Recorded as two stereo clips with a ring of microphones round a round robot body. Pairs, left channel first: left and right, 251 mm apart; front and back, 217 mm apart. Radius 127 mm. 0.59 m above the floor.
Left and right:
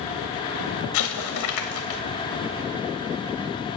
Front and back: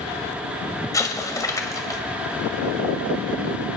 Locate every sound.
0.9 s an explosion: 75° left, 1.8 m